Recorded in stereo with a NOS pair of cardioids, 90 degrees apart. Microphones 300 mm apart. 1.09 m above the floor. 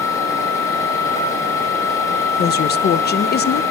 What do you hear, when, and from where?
0.0 s a machine running: 10° left, 4.5 m
2.4 s a woman speaking: 35° left, 0.5 m